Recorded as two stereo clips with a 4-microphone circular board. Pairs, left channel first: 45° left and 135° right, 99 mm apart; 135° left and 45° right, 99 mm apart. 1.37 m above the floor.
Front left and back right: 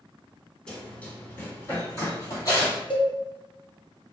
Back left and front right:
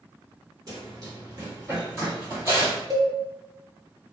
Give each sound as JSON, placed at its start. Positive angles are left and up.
{"t": 0.7, "sound": "running footsteps", "azimuth_deg": -30, "distance_m": 1.7}
{"t": 2.9, "sound": "a cowbell", "azimuth_deg": 5, "distance_m": 0.6}